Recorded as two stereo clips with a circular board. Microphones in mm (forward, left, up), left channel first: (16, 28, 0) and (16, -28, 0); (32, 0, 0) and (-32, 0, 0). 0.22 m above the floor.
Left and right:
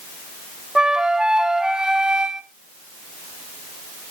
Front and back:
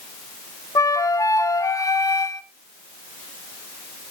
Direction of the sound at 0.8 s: 15° right.